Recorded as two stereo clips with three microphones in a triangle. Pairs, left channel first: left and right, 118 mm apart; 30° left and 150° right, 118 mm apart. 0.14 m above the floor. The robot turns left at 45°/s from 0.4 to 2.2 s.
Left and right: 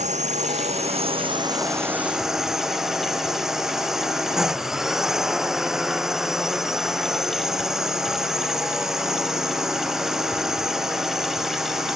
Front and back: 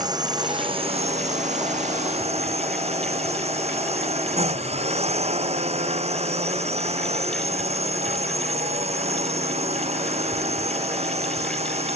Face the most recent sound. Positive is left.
turn(degrees=-175)